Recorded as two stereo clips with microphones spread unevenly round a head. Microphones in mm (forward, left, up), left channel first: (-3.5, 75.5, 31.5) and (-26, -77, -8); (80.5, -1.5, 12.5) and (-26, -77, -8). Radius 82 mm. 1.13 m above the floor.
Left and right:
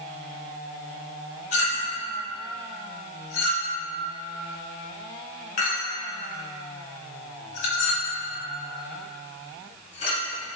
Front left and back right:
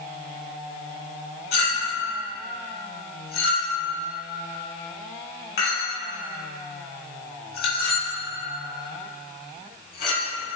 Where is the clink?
35° left, 2.5 m.